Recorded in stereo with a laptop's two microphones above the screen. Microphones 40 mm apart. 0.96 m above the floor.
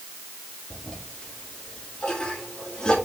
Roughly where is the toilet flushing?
Left.